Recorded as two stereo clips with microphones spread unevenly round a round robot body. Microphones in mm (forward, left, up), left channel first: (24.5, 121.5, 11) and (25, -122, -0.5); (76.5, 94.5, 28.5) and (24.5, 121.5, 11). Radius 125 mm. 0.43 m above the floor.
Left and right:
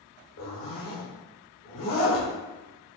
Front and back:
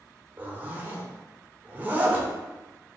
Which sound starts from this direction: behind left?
A zipper, at 0.4 s.